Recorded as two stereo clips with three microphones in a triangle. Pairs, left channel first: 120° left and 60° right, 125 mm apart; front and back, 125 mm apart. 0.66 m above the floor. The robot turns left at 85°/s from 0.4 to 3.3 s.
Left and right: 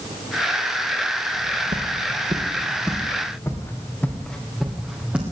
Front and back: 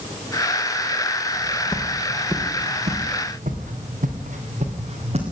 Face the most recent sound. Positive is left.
turn(degrees=-140)